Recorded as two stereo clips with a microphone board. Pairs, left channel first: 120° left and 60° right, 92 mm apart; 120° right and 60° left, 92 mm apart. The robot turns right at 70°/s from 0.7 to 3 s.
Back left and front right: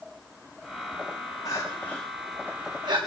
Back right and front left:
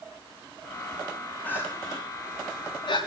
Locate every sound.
1.4 s crying: 165° left, 8.5 m; by 3.0 s 85° right, 8.5 m